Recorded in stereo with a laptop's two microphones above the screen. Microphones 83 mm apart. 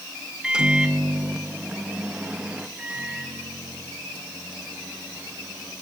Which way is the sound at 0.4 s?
10° right (ahead or behind).